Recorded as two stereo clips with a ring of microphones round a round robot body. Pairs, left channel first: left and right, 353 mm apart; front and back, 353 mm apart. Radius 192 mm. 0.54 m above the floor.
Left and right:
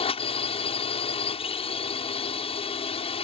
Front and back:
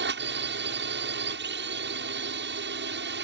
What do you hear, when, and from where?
0.0 s a drone: 150° left